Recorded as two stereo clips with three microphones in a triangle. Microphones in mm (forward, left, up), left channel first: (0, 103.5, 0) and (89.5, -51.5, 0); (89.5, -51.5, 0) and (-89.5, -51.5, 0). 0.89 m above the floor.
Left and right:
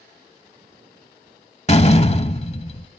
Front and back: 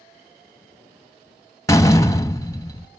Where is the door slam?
70° left, 0.8 m.